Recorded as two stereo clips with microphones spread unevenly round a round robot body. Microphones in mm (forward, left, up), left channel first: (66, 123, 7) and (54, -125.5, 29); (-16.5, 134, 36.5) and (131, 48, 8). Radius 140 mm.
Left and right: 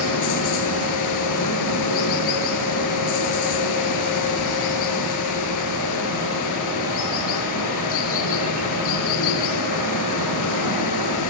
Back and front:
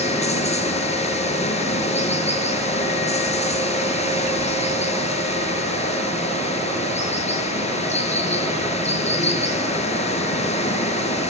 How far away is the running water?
About 6.5 m.